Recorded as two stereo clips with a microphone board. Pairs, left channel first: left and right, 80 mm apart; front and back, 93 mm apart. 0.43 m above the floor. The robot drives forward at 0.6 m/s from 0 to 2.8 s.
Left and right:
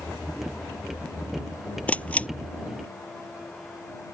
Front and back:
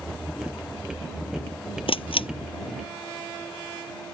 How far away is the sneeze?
No sneeze in this recording.